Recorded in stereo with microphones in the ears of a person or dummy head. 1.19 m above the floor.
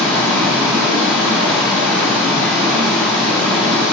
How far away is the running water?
About 2.5 m.